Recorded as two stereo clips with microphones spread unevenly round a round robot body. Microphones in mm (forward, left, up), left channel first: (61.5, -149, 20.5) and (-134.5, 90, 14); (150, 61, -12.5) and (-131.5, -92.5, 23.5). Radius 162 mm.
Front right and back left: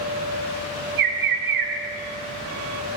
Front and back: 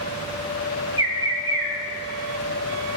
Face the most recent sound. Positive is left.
turn(degrees=130)